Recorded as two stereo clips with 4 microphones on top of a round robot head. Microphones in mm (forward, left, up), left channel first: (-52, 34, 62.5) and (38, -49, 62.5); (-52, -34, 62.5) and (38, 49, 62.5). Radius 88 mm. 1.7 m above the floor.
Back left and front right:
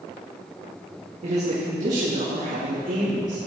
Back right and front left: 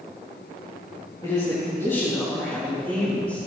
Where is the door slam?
I don't hear a door slam.